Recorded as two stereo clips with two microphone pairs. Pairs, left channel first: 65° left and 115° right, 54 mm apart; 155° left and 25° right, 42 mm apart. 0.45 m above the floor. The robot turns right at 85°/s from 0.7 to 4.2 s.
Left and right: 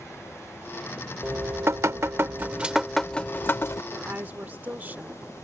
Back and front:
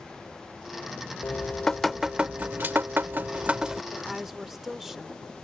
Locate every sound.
1.2 s dripping: 165° right; by 3.8 s 55° left
3.9 s a woman speaking: 125° right; by 5.2 s 100° right